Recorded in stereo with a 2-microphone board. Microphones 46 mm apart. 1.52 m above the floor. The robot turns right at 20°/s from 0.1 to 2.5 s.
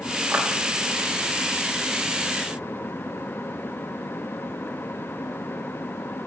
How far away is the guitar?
No guitar in this recording.